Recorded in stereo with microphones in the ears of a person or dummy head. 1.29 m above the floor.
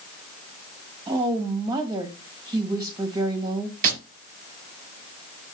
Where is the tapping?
50° right (ahead or behind), 3.5 m.